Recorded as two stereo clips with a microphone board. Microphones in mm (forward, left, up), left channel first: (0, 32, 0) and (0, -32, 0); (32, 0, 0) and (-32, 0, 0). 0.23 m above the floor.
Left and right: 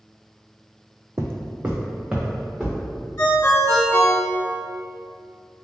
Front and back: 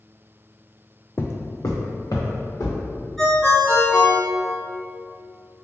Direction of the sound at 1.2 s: 55° right.